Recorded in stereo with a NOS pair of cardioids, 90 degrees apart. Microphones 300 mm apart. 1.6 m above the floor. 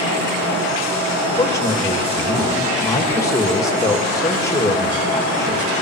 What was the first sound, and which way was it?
A man speaking, 10° left.